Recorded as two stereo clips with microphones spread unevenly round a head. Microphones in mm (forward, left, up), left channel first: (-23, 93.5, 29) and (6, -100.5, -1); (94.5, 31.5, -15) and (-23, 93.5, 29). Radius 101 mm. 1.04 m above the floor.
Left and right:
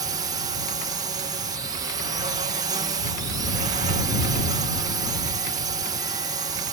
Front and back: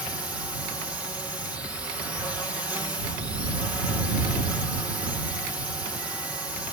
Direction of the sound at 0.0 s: 105° right.